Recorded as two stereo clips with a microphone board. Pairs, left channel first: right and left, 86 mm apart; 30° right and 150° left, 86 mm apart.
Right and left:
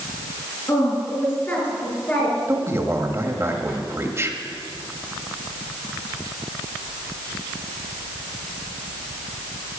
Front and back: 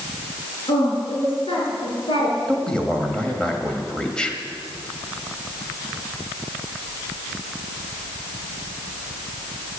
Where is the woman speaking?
30° right, 6 m; by 2.4 s 20° right, 5 m.